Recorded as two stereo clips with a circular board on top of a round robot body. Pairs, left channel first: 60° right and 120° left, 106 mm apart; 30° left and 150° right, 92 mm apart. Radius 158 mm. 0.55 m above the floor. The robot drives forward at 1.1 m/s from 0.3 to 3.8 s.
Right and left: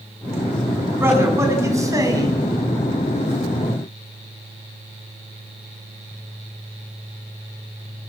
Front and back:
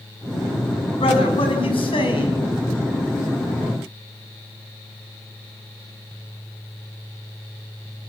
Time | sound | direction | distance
1.0 | a man speaking | 50° left | 6.5 m